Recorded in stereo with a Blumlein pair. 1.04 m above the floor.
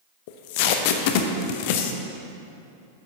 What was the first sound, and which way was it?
Tape being pulled, 50° left.